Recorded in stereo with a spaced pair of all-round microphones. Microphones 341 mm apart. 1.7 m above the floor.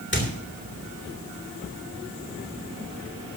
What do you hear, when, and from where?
0.1 s a squeak: 35° left (ahead or behind), 3 m